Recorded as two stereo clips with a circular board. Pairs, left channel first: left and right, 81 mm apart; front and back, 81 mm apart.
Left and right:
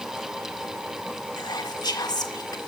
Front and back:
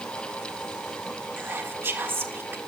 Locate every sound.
1.4 s whispering: 120° left, 1.8 m